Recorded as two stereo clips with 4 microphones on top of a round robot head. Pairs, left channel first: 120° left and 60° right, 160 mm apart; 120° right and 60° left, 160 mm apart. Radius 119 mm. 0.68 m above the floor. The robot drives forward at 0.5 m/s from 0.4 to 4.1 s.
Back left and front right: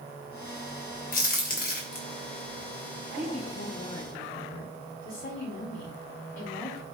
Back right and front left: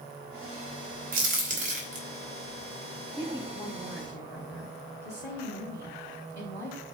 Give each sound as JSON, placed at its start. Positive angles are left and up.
{"t": 1.1, "sound": "a crack", "azimuth_deg": 90, "distance_m": 3.0}
{"t": 3.2, "sound": "a woman speaking", "azimuth_deg": 150, "distance_m": 4.5}